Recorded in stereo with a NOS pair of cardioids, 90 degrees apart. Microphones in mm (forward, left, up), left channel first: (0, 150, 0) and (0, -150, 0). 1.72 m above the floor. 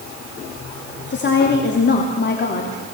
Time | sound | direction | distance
1.1 | a woman speaking | 35° left | 3.5 m